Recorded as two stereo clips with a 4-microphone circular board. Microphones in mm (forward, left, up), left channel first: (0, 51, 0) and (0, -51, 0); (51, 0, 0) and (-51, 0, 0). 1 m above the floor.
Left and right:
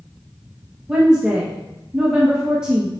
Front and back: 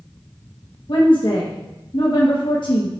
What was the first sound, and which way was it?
A woman speaking, 10° right.